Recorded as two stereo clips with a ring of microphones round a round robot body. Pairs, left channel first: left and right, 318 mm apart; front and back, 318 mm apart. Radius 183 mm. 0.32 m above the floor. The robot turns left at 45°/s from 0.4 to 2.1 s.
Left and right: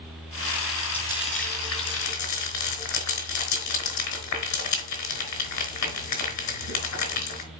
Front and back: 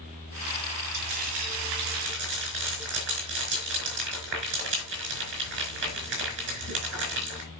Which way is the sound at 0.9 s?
175° left.